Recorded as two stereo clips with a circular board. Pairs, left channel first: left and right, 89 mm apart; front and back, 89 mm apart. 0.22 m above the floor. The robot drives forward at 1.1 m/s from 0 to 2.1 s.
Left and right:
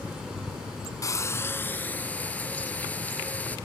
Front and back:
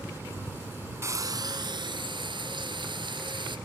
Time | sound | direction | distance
1.0 | frying | 130° left | 0.8 m